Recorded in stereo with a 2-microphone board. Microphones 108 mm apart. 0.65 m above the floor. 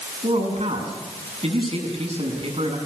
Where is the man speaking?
65° right (ahead or behind), 7 m.